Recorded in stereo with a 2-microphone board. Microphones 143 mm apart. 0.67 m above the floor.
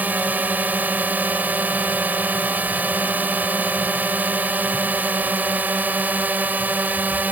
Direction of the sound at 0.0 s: 10° right (ahead or behind).